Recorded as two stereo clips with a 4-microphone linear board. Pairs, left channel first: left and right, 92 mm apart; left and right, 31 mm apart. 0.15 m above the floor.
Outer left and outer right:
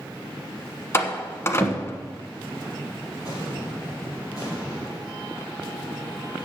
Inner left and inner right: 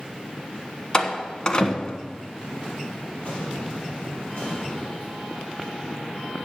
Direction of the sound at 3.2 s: 45° left (ahead or behind).